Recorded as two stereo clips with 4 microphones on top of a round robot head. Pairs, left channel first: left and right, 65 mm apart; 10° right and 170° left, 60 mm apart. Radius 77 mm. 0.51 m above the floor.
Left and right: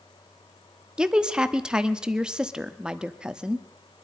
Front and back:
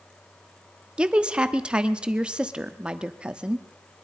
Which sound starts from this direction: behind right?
A woman speaking, at 1.0 s.